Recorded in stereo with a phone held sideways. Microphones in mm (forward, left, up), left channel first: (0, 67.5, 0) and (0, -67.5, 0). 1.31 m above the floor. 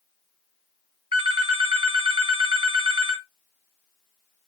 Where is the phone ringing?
40° right (ahead or behind), 0.9 m.